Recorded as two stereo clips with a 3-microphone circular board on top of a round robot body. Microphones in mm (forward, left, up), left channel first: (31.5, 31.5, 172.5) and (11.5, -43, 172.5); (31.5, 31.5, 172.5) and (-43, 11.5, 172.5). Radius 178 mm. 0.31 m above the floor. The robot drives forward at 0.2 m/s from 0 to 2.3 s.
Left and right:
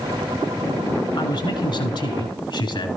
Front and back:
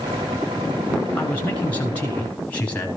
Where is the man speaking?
85° left, 6.5 m.